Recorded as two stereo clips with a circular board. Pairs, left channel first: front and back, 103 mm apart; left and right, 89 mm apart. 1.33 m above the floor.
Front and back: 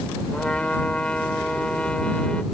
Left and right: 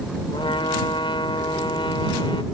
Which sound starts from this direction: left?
A trumpet, at 0.3 s.